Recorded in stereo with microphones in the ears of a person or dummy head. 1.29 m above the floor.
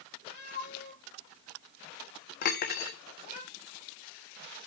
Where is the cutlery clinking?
45° left (ahead or behind), 0.8 m.